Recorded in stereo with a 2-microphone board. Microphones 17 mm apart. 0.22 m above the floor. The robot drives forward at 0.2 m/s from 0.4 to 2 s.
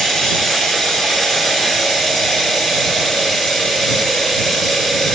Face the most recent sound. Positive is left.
turn(degrees=30)  # may be behind; listen again after turning